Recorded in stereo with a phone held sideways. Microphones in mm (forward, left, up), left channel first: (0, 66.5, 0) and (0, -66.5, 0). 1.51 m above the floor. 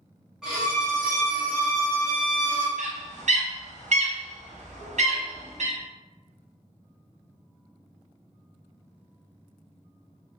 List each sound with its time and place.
0.4 s a violin: 5° right (ahead or behind), 1.1 m
2.8 s a bird: 60° right (ahead or behind), 0.5 m